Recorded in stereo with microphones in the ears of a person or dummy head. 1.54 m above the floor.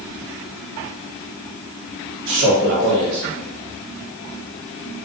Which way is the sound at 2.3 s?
50° right (ahead or behind).